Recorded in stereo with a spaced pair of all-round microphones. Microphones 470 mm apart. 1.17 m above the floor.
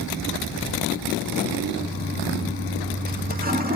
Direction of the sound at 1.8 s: 20° right (ahead or behind).